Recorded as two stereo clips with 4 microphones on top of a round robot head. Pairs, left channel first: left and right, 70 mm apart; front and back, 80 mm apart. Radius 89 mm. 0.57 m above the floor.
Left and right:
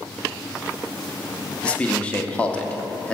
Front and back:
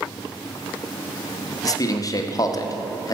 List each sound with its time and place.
1.6 s a man speaking: 20° left, 1.2 m